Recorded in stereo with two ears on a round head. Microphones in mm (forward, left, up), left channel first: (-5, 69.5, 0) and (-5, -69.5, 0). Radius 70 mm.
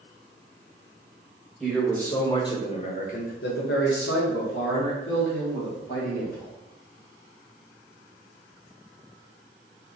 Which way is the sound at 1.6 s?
5° left (ahead or behind).